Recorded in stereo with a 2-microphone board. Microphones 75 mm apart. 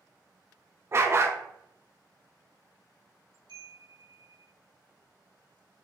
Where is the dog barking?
35° right (ahead or behind), 0.6 m.